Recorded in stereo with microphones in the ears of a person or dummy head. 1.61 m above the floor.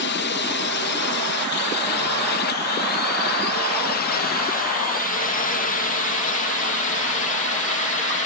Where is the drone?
50° left (ahead or behind); by 8.3 s 35° left (ahead or behind).